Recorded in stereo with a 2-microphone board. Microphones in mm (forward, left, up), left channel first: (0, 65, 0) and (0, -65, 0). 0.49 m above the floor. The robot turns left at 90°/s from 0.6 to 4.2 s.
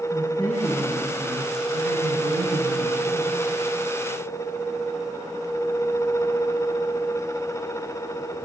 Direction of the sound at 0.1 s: 35° left.